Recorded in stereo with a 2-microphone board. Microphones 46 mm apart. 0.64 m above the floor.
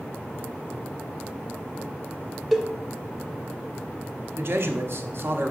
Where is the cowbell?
Centre (ahead or behind), 0.6 m.